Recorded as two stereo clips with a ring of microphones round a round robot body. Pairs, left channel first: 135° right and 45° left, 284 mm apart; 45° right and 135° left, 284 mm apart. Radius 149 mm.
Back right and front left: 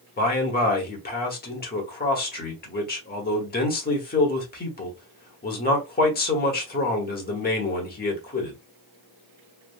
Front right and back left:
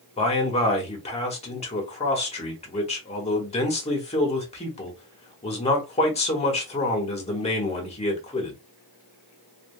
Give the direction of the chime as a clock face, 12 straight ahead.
No chime in this recording.